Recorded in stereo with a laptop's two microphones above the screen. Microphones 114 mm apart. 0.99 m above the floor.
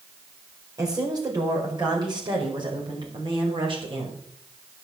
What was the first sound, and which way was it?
A woman speaking, 35° right (ahead or behind).